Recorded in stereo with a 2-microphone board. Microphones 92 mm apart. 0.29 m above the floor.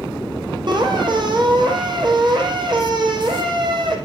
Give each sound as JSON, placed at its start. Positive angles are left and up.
{"t": 0.7, "sound": "a squeak", "side_deg": -50, "distance_m": 4.5}